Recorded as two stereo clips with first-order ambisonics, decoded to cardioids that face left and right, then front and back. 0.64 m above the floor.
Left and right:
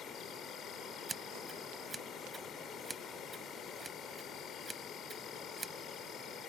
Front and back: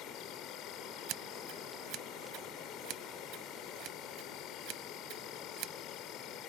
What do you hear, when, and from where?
0.0 s an insect: 35° left
1.1 s scissors: 170° right